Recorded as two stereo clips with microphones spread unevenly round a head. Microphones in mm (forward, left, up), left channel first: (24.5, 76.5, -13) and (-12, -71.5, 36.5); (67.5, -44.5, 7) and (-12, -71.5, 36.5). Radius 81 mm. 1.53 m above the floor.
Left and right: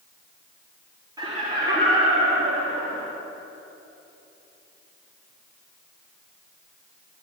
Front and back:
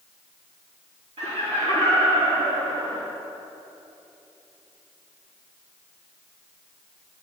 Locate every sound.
1.2 s laughter: 170° right, 3 m; by 3.1 s 155° right, 3.5 m